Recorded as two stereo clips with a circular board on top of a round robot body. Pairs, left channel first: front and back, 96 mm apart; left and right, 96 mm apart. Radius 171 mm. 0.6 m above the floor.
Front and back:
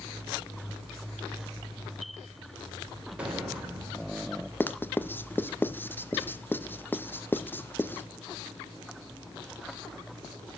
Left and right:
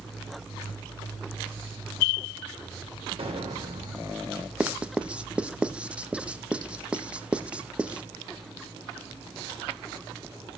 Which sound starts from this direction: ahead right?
Writing, at 4.6 s.